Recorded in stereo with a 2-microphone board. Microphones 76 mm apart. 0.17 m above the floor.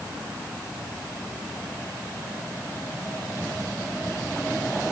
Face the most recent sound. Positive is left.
No sound to turn to.